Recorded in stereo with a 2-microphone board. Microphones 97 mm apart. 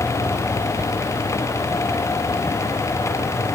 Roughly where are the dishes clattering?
I don't hear dishes clattering.